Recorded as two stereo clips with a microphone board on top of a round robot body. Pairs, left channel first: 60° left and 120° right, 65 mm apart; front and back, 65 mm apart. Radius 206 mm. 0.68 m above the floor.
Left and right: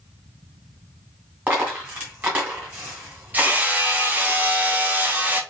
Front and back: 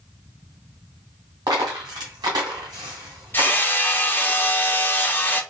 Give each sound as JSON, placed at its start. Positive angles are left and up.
{"t": 1.5, "sound": "a dropped coin", "azimuth_deg": 180, "distance_m": 1.3}
{"t": 3.3, "sound": "hammering", "azimuth_deg": -55, "distance_m": 0.9}